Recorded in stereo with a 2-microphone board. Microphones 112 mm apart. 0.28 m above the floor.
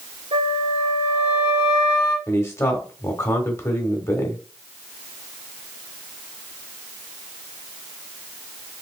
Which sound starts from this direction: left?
A man speaking, at 2.3 s.